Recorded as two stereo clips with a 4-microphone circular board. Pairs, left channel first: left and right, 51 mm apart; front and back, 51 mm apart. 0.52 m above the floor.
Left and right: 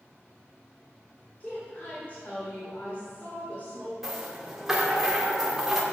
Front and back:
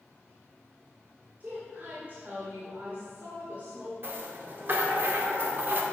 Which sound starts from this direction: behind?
A rattle, at 4.0 s.